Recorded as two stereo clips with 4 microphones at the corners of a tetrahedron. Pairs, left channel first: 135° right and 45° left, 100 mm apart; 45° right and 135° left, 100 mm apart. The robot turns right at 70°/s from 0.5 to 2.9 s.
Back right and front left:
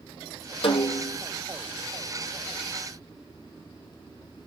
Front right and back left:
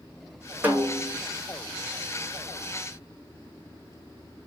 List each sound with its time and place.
0.6 s a snare drum: 155° right, 2 m; by 1.2 s 115° right, 2 m